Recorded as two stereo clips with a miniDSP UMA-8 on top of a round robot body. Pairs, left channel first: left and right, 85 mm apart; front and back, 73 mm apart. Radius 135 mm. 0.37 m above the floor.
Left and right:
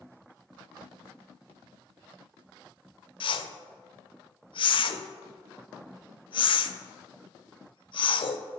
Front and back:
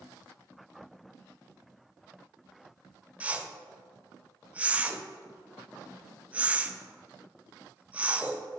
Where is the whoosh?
110° left, 0.5 m.